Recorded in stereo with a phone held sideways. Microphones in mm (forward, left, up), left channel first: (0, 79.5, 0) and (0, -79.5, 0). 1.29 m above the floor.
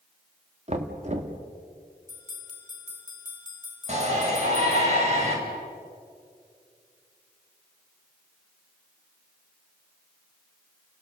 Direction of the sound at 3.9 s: 45° right (ahead or behind).